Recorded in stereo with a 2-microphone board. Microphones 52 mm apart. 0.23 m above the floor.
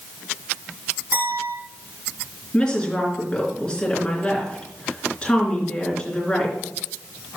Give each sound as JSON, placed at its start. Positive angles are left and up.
{"t": 1.1, "sound": "a clink", "side_deg": -50, "distance_m": 5.0}
{"t": 2.5, "sound": "a woman speaking", "side_deg": 15, "distance_m": 3.5}